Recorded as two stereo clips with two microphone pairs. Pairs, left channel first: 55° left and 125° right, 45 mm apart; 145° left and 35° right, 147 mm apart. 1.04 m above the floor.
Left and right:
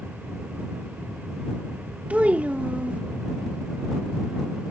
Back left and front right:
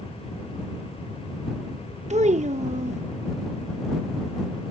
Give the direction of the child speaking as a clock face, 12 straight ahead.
2 o'clock.